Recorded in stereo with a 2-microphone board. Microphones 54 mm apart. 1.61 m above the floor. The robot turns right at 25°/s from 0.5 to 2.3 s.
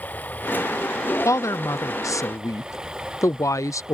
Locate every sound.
0.0 s running water: 150° left; by 3.9 s 165° right
1.2 s a woman speaking: 70° left (ahead or behind); by 3.9 s 75° left (ahead or behind)